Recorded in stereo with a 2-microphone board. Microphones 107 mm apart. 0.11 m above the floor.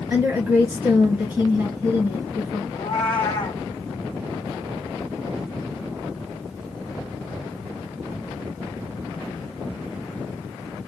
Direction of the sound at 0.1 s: 20° right (ahead or behind).